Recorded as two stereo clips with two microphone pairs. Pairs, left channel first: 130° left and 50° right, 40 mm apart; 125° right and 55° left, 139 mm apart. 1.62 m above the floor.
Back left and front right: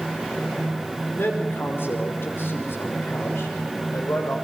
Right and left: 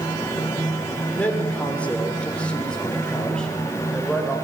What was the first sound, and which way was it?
A man speaking, 160° left.